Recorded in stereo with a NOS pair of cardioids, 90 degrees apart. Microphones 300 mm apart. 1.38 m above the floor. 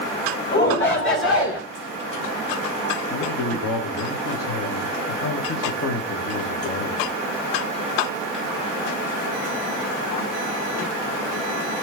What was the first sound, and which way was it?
A shout, 35° left.